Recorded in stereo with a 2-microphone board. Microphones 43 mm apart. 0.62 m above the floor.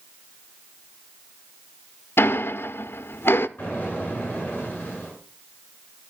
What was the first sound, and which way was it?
Ticking, 75° left (ahead or behind).